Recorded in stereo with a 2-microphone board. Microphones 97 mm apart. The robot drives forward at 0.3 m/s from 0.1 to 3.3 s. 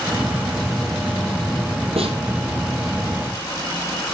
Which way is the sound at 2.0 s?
80° right.